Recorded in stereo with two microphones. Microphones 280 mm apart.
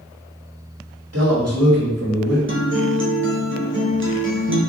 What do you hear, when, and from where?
1.1 s a man speaking: 60° right (ahead or behind), 1.1 m
2.5 s a guitar: 45° right (ahead or behind), 0.6 m